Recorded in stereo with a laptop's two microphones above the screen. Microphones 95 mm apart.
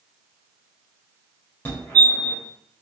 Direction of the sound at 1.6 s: 25° left (ahead or behind).